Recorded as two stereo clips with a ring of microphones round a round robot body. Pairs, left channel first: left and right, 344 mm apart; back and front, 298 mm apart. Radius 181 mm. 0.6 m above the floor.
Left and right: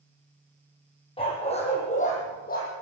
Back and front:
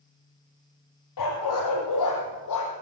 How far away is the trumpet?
No trumpet in this recording.